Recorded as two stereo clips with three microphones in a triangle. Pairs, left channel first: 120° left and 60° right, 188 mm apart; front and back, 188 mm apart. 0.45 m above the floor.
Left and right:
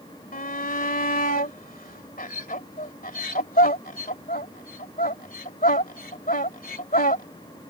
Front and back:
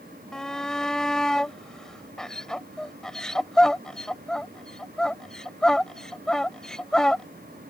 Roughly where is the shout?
Left.